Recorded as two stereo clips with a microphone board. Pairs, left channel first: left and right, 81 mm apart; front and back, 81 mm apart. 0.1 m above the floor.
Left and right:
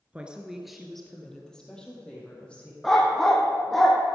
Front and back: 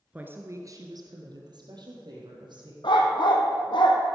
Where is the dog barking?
5° left, 1.9 m.